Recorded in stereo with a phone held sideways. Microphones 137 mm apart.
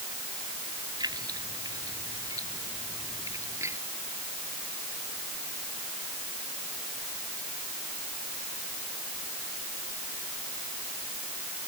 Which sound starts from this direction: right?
Keys jangling, at 1.0 s.